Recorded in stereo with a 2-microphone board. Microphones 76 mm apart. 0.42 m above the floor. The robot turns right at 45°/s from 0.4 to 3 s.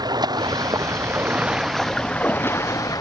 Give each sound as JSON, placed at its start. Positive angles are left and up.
{"t": 0.0, "sound": "running water", "azimuth_deg": -65}